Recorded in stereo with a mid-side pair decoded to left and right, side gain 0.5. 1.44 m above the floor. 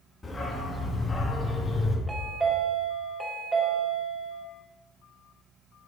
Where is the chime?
25° right, 2 m.